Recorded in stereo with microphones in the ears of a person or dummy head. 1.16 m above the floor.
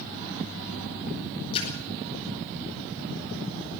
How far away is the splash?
About 9 m.